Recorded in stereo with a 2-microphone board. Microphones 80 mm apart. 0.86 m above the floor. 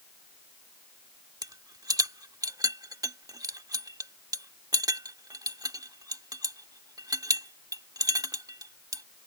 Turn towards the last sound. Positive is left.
turn(degrees=-50)  # may be behind; listen again after turning